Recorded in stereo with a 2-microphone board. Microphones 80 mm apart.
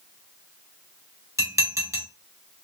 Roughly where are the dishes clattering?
Right.